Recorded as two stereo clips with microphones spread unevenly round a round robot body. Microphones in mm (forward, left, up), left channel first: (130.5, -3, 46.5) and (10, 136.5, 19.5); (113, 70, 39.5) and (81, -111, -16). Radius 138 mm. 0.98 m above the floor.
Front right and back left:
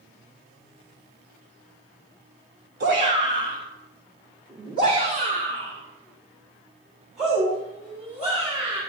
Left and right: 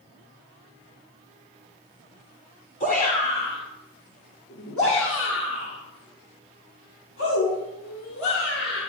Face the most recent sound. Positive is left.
turn(degrees=75)